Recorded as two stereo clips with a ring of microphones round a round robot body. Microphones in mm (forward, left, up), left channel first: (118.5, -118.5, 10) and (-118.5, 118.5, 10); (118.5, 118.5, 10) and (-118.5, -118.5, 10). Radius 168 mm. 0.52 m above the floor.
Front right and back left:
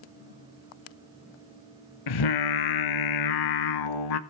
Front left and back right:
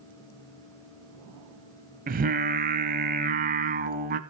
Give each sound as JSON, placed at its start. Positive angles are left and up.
{"t": 2.1, "sound": "singing", "azimuth_deg": -70, "distance_m": 0.7}